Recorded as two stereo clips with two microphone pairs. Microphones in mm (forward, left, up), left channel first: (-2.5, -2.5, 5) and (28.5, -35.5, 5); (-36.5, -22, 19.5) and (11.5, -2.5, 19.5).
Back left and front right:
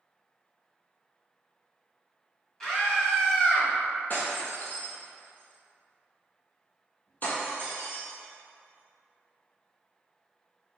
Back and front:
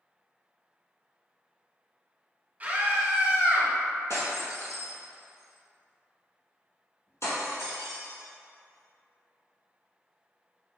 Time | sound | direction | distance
2.6 | a scream | 55° left | 1.3 m
4.1 | breaking glass | 175° right | 1.7 m